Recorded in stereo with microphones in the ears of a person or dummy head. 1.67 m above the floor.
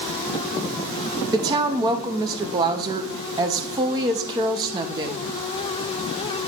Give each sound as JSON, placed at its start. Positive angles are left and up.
{"t": 1.3, "sound": "a woman speaking", "side_deg": -20, "distance_m": 0.6}